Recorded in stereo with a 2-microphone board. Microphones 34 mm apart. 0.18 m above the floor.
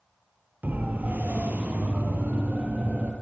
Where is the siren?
65° right (ahead or behind), 5 m; by 3.1 s 50° right (ahead or behind), 6 m.